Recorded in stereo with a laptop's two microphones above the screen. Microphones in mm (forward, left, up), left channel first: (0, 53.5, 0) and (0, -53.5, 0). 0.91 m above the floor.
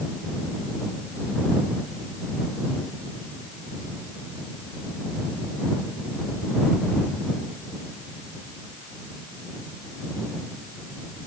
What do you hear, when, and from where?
Only background noise.